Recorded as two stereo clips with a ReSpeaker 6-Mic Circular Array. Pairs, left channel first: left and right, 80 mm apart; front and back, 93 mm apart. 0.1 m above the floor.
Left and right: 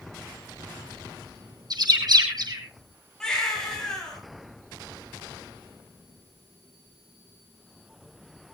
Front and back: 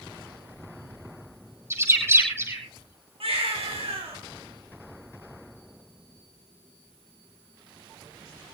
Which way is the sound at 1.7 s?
120° right.